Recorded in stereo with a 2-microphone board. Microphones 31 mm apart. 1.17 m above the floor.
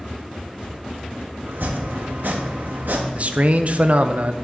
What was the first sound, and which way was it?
Chopping, 70° right (ahead or behind).